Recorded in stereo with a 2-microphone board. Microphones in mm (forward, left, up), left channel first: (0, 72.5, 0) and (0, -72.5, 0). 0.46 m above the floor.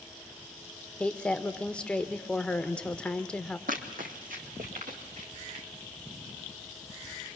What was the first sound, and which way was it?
A woman speaking, 5° left (ahead or behind).